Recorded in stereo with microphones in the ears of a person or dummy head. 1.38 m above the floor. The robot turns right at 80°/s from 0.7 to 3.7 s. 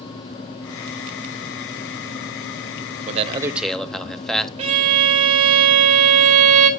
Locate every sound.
3.1 s a man speaking: 45° right, 0.8 m; by 4.5 s 5° left, 0.8 m
4.6 s a violin: 25° right (ahead or behind), 0.8 m